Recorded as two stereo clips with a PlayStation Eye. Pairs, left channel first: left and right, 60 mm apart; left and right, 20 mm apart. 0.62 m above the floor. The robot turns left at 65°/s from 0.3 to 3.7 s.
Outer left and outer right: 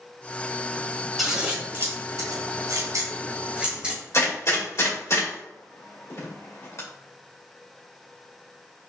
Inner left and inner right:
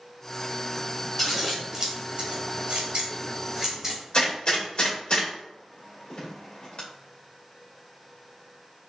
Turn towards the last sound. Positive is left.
turn(degrees=50)  # may be behind; listen again after turning